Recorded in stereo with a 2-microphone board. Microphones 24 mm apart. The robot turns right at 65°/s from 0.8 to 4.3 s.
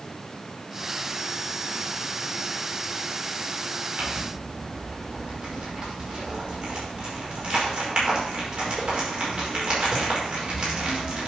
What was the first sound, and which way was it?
Crumpling, 55° right (ahead or behind).